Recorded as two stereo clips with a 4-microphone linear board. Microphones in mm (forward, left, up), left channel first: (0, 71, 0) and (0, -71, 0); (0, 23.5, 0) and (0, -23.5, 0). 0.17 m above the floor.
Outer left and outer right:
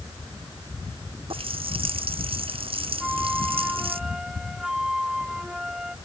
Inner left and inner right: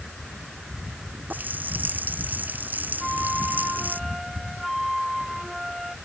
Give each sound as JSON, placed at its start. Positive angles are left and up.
{"t": 1.3, "sound": "a running tap", "side_deg": -40}
{"t": 3.0, "sound": "a flute", "side_deg": -5}